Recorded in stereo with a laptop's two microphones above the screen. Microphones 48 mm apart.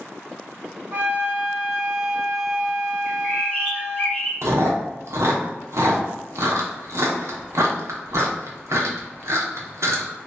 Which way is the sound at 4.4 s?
70° right (ahead or behind).